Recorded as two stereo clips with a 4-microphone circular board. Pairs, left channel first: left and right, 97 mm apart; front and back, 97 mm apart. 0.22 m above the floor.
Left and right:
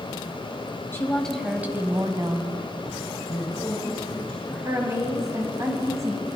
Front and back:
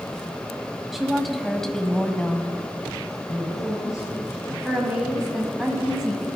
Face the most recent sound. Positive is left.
turn(degrees=-100)